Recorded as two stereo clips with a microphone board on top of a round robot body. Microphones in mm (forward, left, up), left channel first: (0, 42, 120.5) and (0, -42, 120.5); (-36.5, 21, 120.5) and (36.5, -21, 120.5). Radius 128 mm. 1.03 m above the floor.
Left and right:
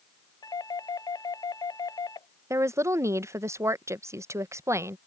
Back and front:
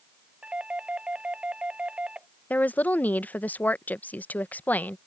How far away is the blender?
I don't hear a blender.